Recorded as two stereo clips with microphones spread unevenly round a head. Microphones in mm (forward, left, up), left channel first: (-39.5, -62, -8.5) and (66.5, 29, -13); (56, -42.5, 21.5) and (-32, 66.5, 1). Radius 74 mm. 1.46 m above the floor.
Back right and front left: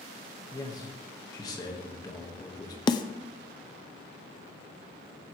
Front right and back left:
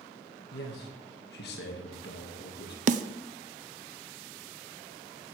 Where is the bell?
No bell in this recording.